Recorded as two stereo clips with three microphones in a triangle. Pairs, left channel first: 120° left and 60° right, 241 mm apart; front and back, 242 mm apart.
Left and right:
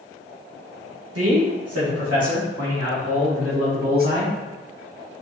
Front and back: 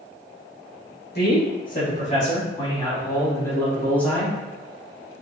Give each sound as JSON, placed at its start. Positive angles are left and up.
{"t": 1.1, "sound": "a man speaking", "azimuth_deg": -45, "distance_m": 1.9}